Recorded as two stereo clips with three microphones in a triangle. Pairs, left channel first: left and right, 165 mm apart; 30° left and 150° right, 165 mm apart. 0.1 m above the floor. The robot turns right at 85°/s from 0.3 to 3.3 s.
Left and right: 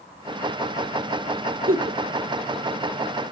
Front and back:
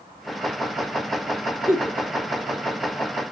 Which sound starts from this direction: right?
A giggle, at 1.7 s.